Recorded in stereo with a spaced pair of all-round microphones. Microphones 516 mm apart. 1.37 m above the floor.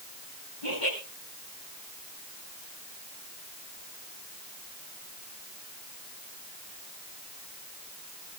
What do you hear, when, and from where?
0.6 s laughter: 85° left, 5.5 m